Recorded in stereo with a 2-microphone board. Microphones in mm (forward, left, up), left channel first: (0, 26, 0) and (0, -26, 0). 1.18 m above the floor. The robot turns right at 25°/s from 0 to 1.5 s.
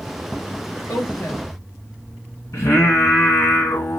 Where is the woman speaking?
75° left (ahead or behind), 1.0 m; by 1.5 s 65° left (ahead or behind), 1.0 m.